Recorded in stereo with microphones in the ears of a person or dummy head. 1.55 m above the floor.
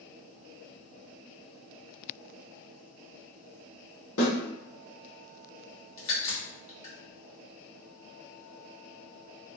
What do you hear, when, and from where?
4.2 s a snare drum: 80° left, 1.3 m
6.0 s a crack: 35° left (ahead or behind), 1.3 m